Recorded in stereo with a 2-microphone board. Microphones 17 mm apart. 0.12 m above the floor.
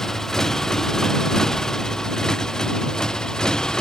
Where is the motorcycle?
30° left (ahead or behind); by 3.8 s 45° left (ahead or behind).